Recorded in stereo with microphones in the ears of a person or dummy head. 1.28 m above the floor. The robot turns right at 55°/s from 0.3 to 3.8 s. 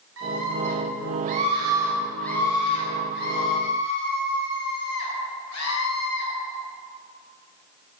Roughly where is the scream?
Right.